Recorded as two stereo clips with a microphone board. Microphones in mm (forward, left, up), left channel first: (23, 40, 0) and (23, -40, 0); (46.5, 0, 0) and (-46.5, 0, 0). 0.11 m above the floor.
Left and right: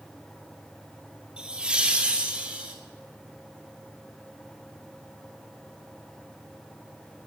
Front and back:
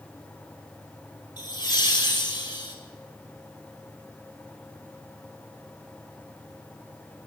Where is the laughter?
15° right, 3 m.